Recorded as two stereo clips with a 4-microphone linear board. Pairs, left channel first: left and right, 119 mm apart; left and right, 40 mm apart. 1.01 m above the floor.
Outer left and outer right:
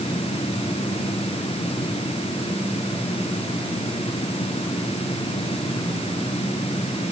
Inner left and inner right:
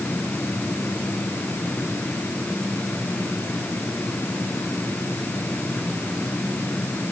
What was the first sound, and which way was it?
Only background noise.